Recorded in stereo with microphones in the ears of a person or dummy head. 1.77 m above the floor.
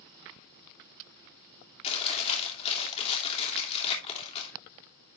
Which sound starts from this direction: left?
Chewing, at 1.8 s.